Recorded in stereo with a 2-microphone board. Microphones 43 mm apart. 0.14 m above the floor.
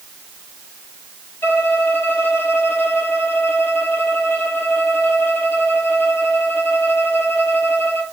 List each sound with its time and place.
1.4 s a violin: 55° left (ahead or behind), 1.7 m